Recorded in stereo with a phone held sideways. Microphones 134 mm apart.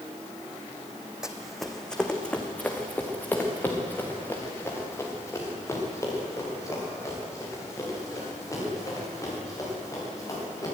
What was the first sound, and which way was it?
Running footsteps, 5° right (ahead or behind).